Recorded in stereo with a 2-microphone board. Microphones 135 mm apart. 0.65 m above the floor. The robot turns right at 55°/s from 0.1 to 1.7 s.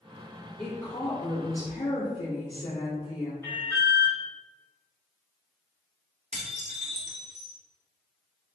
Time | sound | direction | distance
0.6 | a woman speaking | 10° left | 1.3 m
3.4 | an alarm | 20° left (ahead or behind) | 1.3 m
6.3 | dishes clattering | 55° right (ahead or behind) | 1.0 m